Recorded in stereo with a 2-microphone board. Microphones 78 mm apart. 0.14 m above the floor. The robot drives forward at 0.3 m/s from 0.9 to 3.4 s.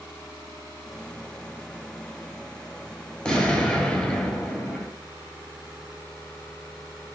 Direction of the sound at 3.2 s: 10° left (ahead or behind).